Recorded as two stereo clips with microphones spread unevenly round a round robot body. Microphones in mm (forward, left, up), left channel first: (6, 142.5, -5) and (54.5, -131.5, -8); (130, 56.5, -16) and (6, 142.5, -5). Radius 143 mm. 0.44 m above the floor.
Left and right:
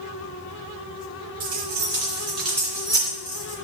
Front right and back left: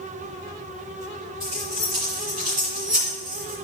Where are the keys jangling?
155° right, 3 m; by 3.5 s 165° left, 3 m.